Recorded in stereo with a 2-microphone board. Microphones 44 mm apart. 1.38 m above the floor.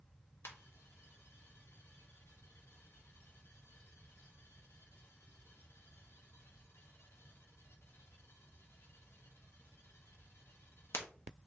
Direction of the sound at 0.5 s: 65° left (ahead or behind).